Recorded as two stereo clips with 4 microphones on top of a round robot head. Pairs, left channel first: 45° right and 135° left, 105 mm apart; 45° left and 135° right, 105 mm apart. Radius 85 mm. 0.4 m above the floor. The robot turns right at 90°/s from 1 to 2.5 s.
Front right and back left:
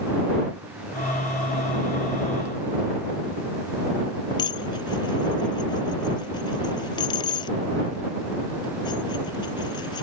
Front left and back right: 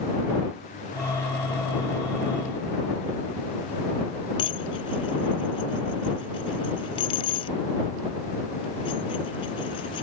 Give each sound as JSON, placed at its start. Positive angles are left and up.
{"t": 4.4, "sound": "dishes clattering", "azimuth_deg": 5}